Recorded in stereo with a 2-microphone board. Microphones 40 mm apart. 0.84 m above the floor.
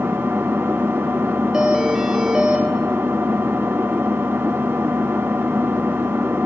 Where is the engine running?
75° right (ahead or behind), 1.4 m.